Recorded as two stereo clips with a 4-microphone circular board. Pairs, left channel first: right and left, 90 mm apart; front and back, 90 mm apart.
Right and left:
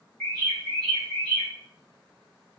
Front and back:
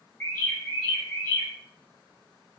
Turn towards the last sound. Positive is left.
turn(degrees=-15)